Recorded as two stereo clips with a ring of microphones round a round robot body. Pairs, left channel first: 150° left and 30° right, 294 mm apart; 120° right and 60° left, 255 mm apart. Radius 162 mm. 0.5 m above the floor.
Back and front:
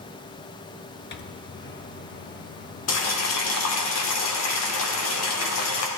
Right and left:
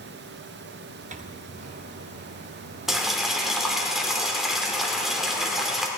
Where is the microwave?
110° left, 0.8 m.